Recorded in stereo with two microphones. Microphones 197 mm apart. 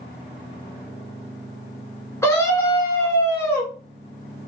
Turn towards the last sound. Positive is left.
turn(degrees=15)  # may be behind; listen again after turning